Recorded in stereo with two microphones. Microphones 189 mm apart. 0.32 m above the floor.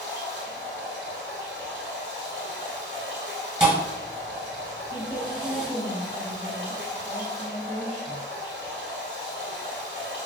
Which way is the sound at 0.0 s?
90° left.